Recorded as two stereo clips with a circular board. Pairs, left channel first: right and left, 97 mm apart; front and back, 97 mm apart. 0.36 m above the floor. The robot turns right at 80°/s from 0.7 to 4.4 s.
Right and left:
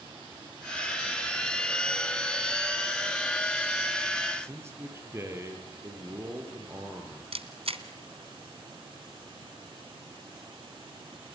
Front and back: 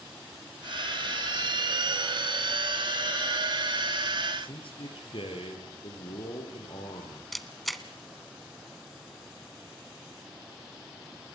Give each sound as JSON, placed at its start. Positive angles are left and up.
{"t": 4.4, "sound": "a man speaking", "azimuth_deg": 25, "distance_m": 7.0}
{"t": 7.3, "sound": "a camera shutter", "azimuth_deg": 90, "distance_m": 1.6}